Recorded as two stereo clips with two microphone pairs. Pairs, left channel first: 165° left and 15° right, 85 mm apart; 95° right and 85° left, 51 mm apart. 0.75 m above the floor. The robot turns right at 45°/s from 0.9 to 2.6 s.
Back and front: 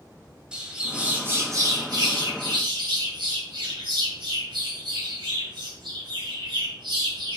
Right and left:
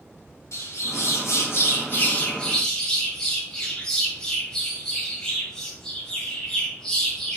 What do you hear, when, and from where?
0.5 s a bird: 90° right, 2.5 m; by 7.4 s 15° right, 2.5 m